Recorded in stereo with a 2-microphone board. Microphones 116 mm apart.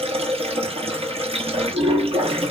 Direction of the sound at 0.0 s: 55° right (ahead or behind).